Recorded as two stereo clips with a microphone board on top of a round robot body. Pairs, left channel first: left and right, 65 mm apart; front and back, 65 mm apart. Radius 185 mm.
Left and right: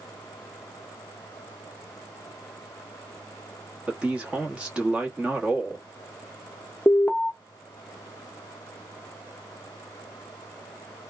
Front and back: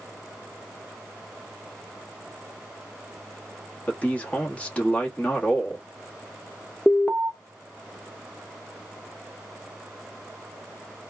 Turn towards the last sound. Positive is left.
turn(degrees=45)